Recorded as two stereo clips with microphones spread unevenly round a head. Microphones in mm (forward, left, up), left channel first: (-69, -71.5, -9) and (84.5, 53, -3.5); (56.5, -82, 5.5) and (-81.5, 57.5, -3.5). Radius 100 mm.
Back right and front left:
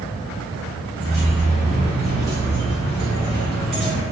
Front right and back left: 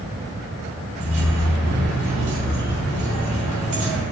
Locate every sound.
1.0 s keys jangling: 130° left, 1.3 m